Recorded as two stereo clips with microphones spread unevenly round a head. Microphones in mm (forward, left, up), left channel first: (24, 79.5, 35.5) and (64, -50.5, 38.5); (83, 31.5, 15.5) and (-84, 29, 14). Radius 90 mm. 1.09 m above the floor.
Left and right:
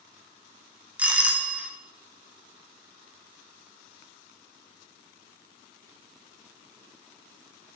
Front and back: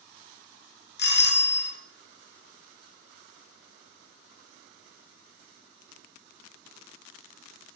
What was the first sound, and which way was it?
A doorbell, 10° left.